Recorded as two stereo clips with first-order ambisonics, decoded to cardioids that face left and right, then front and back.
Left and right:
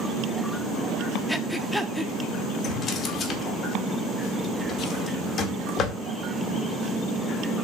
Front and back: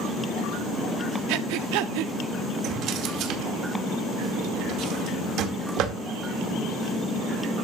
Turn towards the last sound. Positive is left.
turn(degrees=145)